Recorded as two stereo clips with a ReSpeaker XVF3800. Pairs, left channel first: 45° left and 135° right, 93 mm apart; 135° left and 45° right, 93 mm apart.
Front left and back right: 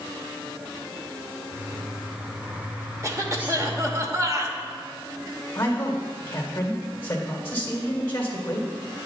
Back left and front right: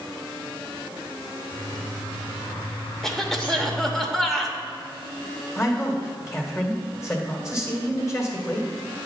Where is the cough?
140° right, 0.9 m.